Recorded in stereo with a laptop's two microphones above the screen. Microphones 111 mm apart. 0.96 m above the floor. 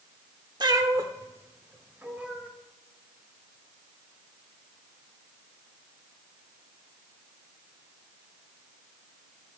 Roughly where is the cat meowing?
Right.